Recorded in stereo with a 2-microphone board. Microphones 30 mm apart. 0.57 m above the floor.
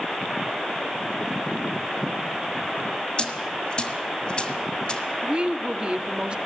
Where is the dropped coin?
35° left (ahead or behind), 1.7 m.